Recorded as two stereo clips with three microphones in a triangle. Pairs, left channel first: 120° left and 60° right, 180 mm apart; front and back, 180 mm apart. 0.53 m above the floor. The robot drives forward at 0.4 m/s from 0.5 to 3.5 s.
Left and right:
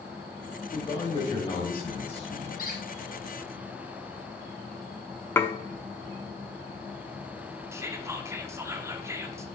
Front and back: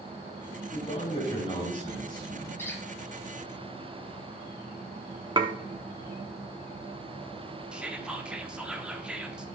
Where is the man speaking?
50° left, 3 m; by 2.5 s 65° left, 2.5 m.